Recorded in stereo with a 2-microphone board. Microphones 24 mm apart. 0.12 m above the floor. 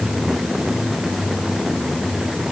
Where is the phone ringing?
No phone ringing in this recording.